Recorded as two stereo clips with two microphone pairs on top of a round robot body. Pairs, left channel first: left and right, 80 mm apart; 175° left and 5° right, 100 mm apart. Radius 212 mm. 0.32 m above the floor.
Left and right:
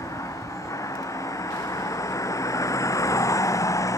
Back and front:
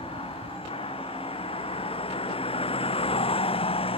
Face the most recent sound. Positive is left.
turn(degrees=145)